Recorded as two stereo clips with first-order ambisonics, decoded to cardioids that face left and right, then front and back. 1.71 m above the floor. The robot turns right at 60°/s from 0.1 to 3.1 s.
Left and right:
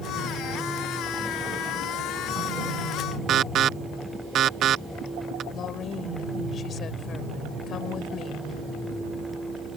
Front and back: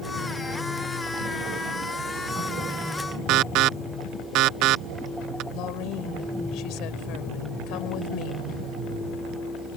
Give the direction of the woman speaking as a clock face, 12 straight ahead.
11 o'clock.